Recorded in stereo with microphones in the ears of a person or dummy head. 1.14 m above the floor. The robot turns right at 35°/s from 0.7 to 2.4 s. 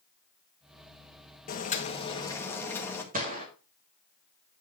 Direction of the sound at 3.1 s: 40° right (ahead or behind).